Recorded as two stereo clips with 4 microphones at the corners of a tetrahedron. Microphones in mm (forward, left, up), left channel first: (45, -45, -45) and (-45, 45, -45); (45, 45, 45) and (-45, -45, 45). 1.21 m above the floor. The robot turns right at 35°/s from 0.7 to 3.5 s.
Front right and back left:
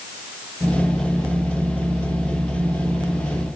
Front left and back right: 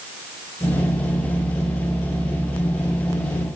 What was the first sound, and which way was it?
Only background noise.